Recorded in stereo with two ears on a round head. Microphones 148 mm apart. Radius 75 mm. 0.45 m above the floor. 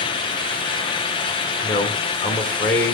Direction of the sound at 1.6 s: 15° left (ahead or behind).